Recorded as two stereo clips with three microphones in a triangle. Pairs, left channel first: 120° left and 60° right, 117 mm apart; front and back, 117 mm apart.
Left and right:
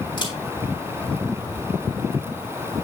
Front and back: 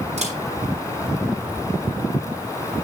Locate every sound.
0.2 s a camera shutter: 165° left, 5 m